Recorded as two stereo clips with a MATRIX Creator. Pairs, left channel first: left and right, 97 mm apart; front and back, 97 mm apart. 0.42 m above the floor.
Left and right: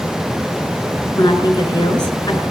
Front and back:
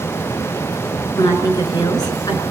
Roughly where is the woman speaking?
Ahead left.